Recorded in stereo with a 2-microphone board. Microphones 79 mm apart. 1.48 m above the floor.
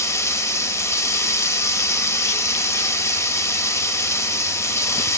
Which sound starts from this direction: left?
Running water, at 0.0 s.